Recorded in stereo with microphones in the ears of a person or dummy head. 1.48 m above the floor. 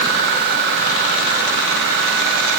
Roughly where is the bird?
I don't hear a bird.